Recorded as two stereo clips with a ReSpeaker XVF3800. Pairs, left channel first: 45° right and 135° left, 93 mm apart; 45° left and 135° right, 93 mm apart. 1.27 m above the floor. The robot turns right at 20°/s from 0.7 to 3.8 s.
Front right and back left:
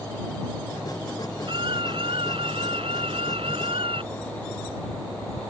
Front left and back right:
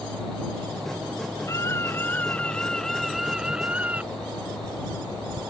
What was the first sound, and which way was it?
A scream, 100° left.